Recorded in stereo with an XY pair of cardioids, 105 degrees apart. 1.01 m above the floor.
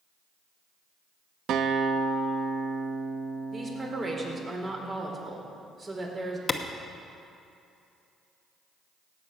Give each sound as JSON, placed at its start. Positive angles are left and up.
{"t": 1.5, "sound": "a guitar", "azimuth_deg": -70, "distance_m": 0.7}
{"t": 3.5, "sound": "a woman speaking", "azimuth_deg": -30, "distance_m": 3.0}
{"t": 6.5, "sound": "a clap", "azimuth_deg": 25, "distance_m": 1.0}